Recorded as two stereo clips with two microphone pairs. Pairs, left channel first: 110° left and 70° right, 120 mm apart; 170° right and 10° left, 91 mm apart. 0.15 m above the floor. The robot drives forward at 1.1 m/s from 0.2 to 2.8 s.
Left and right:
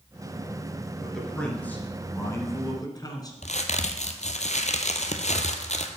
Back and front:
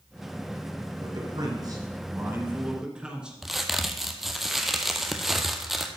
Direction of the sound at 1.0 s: 25° left.